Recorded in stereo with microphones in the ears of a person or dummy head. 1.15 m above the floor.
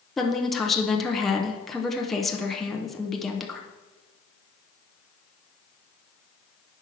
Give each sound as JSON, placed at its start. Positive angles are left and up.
{"t": 0.2, "sound": "a woman speaking", "side_deg": 5, "distance_m": 0.6}